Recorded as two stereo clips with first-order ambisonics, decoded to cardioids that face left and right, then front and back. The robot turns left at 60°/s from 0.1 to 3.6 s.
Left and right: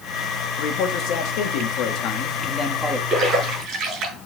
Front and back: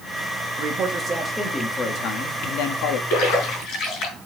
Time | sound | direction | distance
0.6 | a man speaking | 140° left | 1.7 m
3.1 | a splash | 15° right | 5 m